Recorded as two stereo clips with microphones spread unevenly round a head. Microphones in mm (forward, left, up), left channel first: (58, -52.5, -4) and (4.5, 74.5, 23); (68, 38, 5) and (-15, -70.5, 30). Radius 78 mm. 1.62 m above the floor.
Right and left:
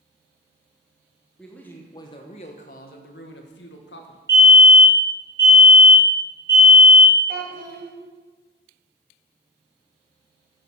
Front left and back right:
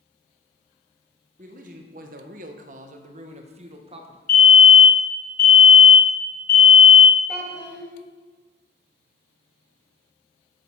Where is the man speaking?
160° right, 0.9 m; by 4.2 s 80° right, 1.5 m.